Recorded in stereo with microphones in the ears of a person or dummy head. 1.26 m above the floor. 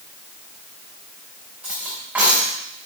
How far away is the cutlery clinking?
About 3.5 m.